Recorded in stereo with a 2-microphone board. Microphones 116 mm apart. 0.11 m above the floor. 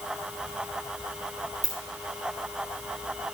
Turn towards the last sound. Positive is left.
turn(degrees=-80)